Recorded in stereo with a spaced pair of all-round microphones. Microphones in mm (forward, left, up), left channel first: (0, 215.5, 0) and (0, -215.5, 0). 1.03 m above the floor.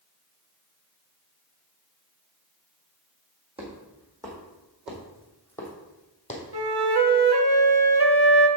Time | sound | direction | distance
3.6 | footsteps | 15° right (ahead or behind) | 3.5 m
6.5 | a flute | 60° right (ahead or behind) | 0.8 m